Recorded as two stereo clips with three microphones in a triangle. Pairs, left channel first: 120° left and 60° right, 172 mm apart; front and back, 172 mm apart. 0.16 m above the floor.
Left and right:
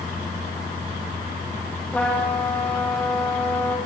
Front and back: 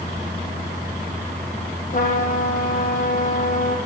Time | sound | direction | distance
1.9 | a trumpet | 35° left | 6 m